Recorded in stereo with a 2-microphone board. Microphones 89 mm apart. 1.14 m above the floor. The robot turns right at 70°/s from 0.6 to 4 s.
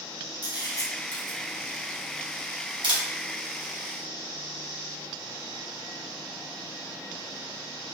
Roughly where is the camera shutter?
Left.